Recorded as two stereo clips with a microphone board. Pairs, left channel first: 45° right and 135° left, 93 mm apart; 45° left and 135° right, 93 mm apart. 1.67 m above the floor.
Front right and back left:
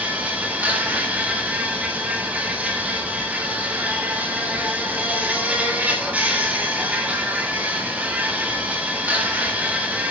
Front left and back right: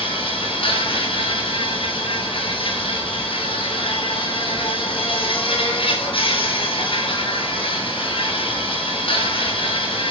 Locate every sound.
0.0 s an insect: 60° left, 8 m